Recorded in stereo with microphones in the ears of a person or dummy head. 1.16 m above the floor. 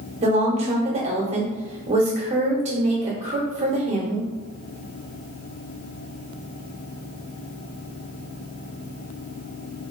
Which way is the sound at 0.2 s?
35° right (ahead or behind).